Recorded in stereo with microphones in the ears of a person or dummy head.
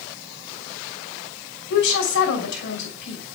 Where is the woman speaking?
70° left (ahead or behind), 5.5 m.